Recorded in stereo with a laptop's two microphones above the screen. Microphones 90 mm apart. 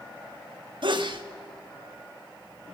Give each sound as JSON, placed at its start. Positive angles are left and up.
{"t": 0.8, "sound": "a sneeze", "side_deg": -60, "distance_m": 1.5}